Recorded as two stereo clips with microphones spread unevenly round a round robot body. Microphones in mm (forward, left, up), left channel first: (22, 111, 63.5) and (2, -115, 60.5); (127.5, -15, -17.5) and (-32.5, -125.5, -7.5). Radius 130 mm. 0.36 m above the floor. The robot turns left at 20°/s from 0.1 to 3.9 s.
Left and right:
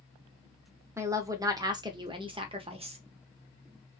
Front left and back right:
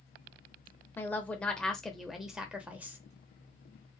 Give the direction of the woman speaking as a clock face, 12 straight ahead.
1 o'clock.